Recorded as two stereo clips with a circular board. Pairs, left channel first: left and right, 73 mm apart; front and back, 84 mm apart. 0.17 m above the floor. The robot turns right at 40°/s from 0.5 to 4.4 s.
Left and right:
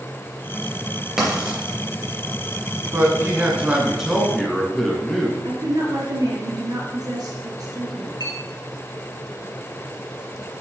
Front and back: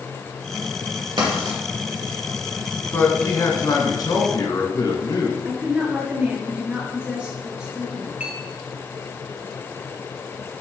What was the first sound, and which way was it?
Writing, 175° right.